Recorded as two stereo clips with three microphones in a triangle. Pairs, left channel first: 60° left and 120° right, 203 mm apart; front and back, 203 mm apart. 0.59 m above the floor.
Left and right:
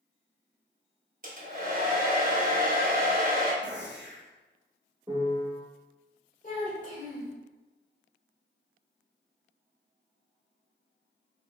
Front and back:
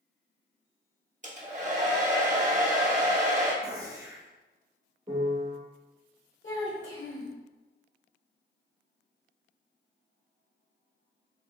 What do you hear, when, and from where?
1.2 s a hair dryer: 145° right, 0.9 m
3.6 s a gunshot: 110° right, 0.8 m
5.1 s a piano: 165° right, 1.0 m
6.4 s a child speaking: 10° left, 1.4 m